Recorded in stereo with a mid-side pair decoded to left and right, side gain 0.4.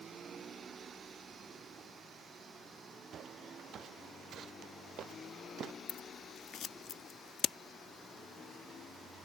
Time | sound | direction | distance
3.1 | footsteps | 65° right | ?
5.9 | scissors | 65° left | ?